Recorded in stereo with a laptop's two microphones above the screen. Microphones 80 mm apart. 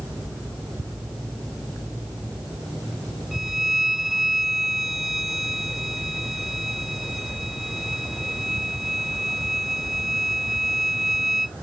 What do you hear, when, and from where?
3.3 s a violin: 5° right (ahead or behind)